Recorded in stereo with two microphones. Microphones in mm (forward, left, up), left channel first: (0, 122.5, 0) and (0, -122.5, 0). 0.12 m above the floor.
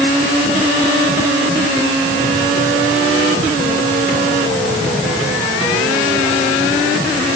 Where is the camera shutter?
No camera shutter in this recording.